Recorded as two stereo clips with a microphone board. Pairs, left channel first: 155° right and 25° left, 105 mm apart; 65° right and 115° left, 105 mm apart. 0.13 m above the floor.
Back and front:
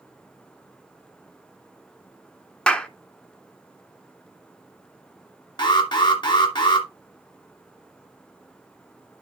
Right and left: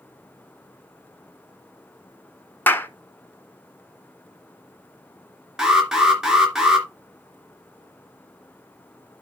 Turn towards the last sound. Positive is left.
turn(degrees=-165)